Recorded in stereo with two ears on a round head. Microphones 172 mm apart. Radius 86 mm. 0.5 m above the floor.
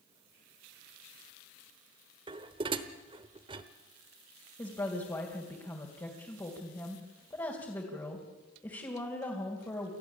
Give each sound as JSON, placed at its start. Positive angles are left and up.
{"t": 2.3, "sound": "dishes clattering", "side_deg": -25, "distance_m": 1.1}
{"t": 4.6, "sound": "a woman speaking", "side_deg": 15, "distance_m": 3.0}